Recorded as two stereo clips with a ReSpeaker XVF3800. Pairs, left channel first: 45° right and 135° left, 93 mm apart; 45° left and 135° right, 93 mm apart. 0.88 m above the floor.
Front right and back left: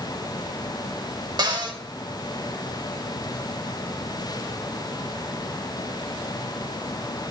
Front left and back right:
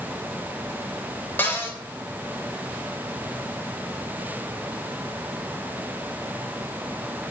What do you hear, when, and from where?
1.4 s a cupboard door: 110° left, 1.3 m